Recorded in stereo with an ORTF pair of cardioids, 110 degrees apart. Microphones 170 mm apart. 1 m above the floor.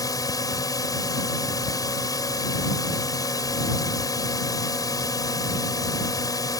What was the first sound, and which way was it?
A drone, 20° left.